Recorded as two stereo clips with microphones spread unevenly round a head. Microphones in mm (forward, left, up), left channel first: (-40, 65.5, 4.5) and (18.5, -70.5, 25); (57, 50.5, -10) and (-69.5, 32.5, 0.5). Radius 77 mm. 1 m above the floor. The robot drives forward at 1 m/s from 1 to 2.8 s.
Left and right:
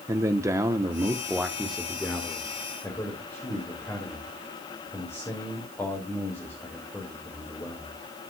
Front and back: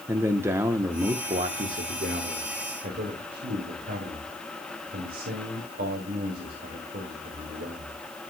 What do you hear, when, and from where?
0.1 s a man speaking: 120° right, 0.8 m; by 8.0 s 175° right, 2 m